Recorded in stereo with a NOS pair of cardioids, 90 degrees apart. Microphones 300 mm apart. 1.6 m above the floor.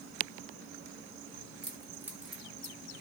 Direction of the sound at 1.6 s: 15° right.